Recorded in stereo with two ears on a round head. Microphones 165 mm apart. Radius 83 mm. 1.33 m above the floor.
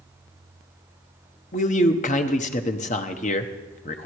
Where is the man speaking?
40° left (ahead or behind), 1.0 m.